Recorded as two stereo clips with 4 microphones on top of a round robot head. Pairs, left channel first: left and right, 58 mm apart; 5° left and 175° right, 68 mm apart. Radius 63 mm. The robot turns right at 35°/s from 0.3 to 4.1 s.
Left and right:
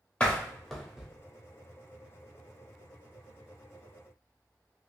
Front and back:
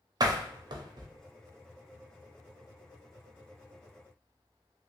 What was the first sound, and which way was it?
A door slam, 160° left.